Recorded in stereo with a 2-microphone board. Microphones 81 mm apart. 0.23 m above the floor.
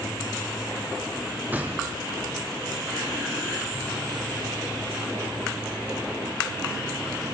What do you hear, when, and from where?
1.5 s a gunshot: 20° right (ahead or behind), 3.5 m